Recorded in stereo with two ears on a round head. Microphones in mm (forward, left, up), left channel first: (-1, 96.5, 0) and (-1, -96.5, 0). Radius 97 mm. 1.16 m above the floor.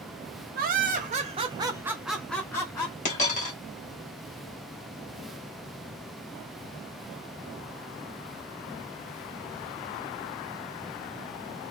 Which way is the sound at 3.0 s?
35° left (ahead or behind).